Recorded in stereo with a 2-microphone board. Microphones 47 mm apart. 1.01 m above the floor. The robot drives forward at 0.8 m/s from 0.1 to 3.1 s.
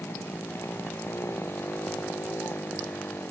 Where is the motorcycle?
65° left (ahead or behind).